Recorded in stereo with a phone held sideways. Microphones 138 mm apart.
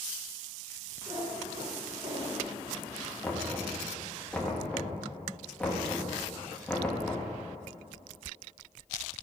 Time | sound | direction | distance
1.1 | a cat meowing | 35° right (ahead or behind) | 2 m
3.2 | knocking | 10° left (ahead or behind) | 1.5 m